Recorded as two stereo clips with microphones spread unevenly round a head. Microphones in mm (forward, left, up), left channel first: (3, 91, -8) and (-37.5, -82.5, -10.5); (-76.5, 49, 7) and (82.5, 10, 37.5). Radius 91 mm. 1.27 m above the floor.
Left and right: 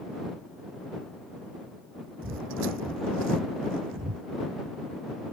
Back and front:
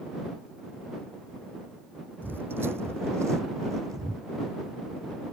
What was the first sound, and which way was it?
Footsteps, 90° right.